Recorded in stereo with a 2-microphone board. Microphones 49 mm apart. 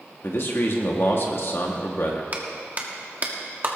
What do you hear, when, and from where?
0.2 s a man speaking: 55° left (ahead or behind), 1.5 m
2.3 s a clap: 40° right (ahead or behind), 1.4 m